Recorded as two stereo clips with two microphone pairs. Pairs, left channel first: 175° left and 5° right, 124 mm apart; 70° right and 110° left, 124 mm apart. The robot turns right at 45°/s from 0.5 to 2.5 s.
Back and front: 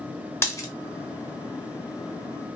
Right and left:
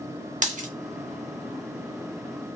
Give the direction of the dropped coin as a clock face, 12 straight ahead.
9 o'clock.